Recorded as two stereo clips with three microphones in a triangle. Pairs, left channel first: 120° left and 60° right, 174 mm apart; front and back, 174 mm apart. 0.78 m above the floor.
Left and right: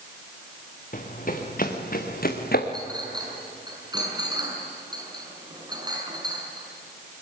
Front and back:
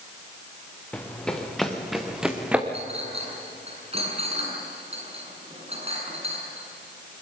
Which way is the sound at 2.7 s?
125° right.